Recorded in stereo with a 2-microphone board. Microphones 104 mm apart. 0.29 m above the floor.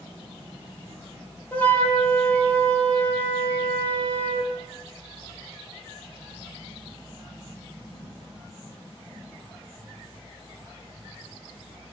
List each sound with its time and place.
1.5 s a flute: 15° left (ahead or behind), 6.5 m